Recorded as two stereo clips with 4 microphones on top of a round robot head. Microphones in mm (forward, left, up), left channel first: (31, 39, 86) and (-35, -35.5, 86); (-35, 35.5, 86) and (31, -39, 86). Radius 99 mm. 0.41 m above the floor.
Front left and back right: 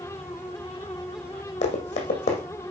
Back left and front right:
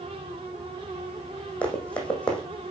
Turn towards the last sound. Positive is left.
turn(degrees=50)